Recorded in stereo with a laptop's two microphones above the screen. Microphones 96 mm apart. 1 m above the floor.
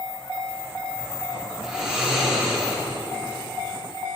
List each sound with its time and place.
1.6 s snoring: 10° right (ahead or behind), 2 m